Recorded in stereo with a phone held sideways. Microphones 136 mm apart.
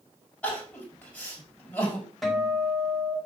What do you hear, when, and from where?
0.4 s crying: 10° left (ahead or behind), 5.5 m
2.2 s a guitar: 5° left (ahead or behind), 5 m